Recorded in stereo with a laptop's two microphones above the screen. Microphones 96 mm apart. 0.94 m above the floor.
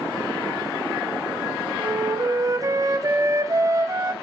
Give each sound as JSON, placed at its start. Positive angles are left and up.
{"t": 1.8, "sound": "a flute", "side_deg": -35, "distance_m": 1.9}